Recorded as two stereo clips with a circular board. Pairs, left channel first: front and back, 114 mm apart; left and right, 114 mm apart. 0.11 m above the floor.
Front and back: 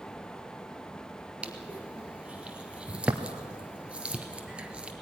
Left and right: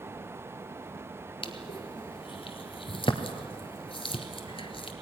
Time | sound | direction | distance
1.4 | crushing | 100° left | 1.6 m